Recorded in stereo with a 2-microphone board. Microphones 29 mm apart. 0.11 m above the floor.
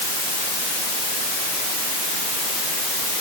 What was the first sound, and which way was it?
Only background noise.